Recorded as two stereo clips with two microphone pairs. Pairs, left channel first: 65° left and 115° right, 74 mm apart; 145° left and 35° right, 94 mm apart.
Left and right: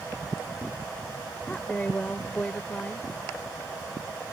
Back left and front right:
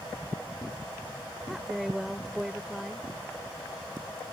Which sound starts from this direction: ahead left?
A woman speaking, at 1.5 s.